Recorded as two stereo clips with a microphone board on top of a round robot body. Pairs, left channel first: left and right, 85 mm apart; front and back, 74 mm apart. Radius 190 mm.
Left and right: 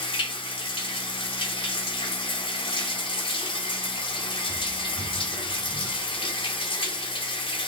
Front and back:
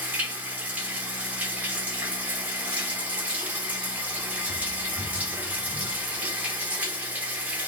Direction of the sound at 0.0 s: 110° left.